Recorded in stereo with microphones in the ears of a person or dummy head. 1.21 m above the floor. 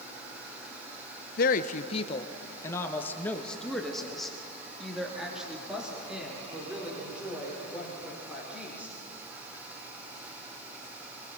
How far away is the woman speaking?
About 0.9 m.